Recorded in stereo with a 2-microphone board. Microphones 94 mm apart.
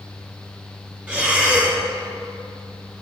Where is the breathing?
10° right (ahead or behind), 1.4 m.